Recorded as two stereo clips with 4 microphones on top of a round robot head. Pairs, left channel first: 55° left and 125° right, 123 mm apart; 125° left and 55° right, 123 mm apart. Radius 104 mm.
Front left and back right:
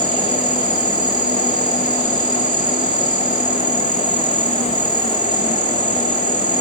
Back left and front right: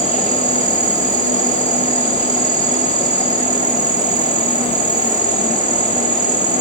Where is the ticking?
I don't hear ticking.